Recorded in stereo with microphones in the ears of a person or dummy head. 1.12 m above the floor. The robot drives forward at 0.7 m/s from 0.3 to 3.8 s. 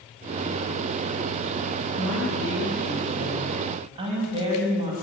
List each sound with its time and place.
2.0 s a woman speaking: 45° right (ahead or behind), 4.5 m; by 4.9 s 35° right (ahead or behind), 5.5 m